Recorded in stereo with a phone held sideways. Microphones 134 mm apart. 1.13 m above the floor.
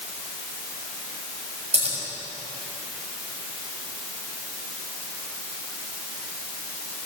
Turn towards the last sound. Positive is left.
turn(degrees=-55)  # may be behind; listen again after turning